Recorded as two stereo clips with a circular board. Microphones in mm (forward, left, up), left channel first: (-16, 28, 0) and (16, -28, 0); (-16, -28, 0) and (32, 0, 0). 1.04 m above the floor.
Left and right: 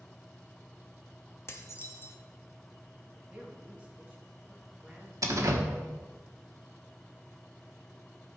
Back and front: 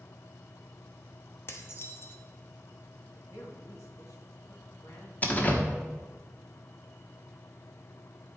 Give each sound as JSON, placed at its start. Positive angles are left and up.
{"t": 1.5, "sound": "dishes clattering", "azimuth_deg": 165, "distance_m": 0.9}
{"t": 3.0, "sound": "a woman speaking", "azimuth_deg": -130, "distance_m": 1.8}
{"t": 5.2, "sound": "a door slam", "azimuth_deg": -95, "distance_m": 1.2}